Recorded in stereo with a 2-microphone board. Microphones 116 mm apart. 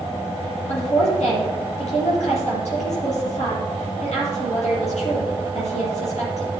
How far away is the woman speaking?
About 7 m.